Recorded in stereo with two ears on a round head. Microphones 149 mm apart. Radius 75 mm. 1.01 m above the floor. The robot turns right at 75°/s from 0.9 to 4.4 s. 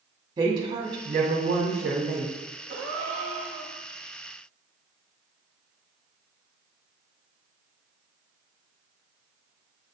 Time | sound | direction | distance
0.4 | a woman speaking | 155° right | 2 m
2.7 | a gasp | 100° right | 1.7 m